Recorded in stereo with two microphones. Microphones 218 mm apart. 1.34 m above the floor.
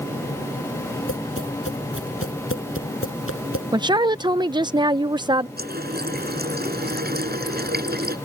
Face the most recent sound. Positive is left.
turn(degrees=-50)  # may be behind; listen again after turning